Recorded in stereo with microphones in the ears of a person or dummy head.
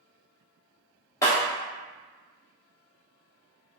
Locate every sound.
1.2 s breaking glass: 20° left (ahead or behind), 0.9 m